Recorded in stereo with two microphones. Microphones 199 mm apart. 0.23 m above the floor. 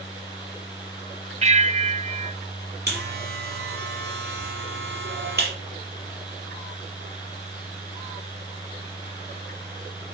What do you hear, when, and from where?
1.4 s a bell: 35° right (ahead or behind), 0.7 m
2.9 s a buzzer: 55° right (ahead or behind), 4.5 m